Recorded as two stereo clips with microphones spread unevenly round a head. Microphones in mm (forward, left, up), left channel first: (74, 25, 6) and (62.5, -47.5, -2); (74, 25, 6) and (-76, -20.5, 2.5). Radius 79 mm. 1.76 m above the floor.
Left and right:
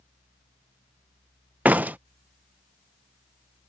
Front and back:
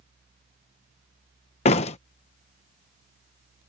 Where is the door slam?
30° right.